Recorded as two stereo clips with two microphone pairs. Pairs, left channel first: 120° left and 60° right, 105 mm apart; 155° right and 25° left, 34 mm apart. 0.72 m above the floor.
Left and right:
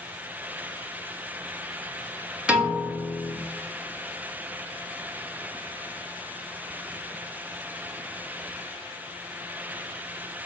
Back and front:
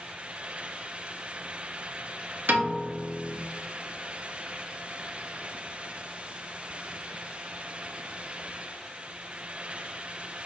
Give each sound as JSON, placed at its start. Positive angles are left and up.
{"t": 2.5, "sound": "a piano", "azimuth_deg": 20, "distance_m": 1.1}